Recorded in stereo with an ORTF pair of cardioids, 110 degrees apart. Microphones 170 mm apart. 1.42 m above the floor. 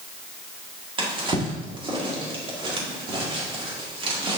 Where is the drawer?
30° right, 1.9 m.